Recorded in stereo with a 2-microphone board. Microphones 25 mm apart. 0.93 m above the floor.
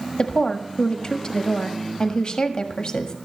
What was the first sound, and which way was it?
A woman speaking, 35° left (ahead or behind).